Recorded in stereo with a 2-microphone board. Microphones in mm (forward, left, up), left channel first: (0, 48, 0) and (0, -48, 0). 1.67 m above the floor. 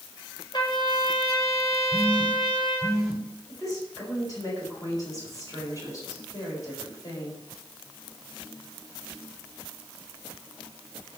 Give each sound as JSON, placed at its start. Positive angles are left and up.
{"t": 0.5, "sound": "a trumpet", "side_deg": 50, "distance_m": 7.5}
{"t": 1.9, "sound": "a phone buzzing", "side_deg": -5, "distance_m": 2.0}
{"t": 3.5, "sound": "a woman speaking", "side_deg": 40, "distance_m": 6.5}